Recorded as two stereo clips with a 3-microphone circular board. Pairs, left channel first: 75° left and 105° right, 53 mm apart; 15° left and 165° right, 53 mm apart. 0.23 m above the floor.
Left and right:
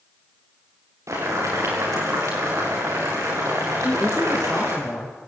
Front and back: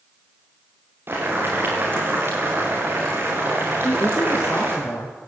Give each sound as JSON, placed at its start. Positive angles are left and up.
{"t": 1.1, "sound": "boiling", "azimuth_deg": -120, "distance_m": 8.5}
{"t": 3.8, "sound": "a woman speaking", "azimuth_deg": 0, "distance_m": 3.0}